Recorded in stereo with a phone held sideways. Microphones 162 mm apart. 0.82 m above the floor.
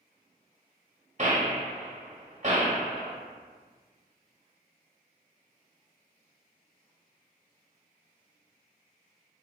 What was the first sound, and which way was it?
A gunshot, 50° right (ahead or behind).